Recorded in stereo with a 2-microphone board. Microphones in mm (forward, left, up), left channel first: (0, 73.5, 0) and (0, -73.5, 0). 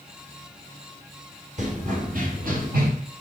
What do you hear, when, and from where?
1.6 s running footsteps: 55° right (ahead or behind), 3 m; by 2.9 s 85° right, 3 m